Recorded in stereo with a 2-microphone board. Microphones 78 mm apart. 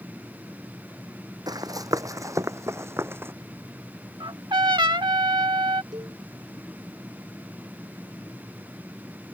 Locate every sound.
1.5 s running footsteps: 55° right (ahead or behind); by 3.3 s 30° right (ahead or behind)
4.2 s a trumpet: 75° right (ahead or behind)
5.9 s a cowbell: 60° right (ahead or behind)